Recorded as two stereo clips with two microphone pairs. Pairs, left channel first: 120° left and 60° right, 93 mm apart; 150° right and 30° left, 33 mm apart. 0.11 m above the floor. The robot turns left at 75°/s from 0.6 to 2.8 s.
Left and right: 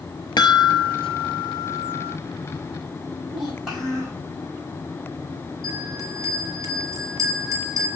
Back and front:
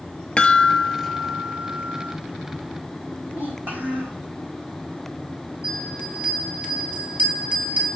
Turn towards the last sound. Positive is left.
turn(degrees=-5)